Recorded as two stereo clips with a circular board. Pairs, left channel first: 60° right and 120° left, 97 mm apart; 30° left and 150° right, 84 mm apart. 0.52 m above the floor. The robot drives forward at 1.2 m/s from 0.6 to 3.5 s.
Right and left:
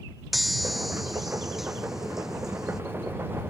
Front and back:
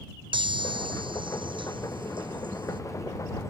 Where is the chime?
150° right; by 2.8 s 155° right.